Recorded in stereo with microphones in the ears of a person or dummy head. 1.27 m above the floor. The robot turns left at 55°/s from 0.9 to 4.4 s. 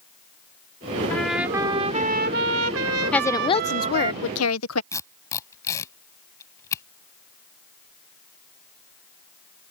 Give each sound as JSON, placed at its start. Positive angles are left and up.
{"t": 1.1, "sound": "a trumpet", "azimuth_deg": 10}
{"t": 3.1, "sound": "a woman speaking", "azimuth_deg": 170}
{"t": 4.9, "sound": "tape being pulled", "side_deg": 20}